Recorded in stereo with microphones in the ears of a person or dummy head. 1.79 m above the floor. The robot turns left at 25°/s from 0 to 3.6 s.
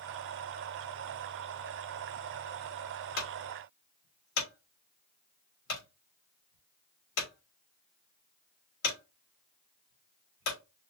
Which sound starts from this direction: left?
A clunk, at 3.2 s.